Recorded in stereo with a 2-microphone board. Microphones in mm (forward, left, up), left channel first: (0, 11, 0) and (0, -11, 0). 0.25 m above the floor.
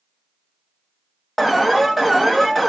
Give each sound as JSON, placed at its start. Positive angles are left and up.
{"t": 1.4, "sound": "an alarm", "side_deg": -5, "distance_m": 0.8}